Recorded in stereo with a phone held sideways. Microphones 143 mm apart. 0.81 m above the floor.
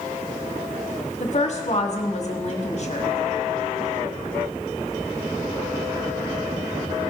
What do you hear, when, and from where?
1.2 s a woman speaking: 50° left (ahead or behind), 1.8 m